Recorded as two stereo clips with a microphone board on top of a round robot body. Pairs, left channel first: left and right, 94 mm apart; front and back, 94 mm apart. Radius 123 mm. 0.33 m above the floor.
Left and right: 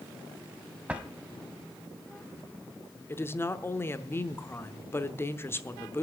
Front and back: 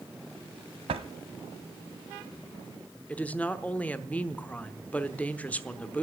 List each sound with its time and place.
0.9 s a drawer: 165° right, 0.9 m
3.1 s a woman speaking: 60° left, 1.0 m